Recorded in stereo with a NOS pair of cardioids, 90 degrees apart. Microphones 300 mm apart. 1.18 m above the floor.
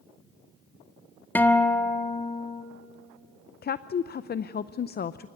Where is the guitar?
5° left, 1.4 m.